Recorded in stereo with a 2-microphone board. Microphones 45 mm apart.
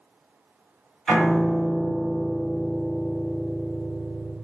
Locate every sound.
1.1 s a piano: centre (ahead or behind), 1.6 m